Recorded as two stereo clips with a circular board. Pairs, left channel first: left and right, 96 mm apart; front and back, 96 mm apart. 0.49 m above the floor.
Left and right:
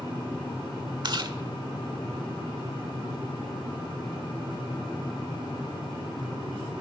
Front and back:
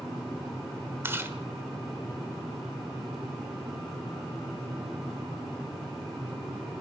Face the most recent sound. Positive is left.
turn(degrees=-120)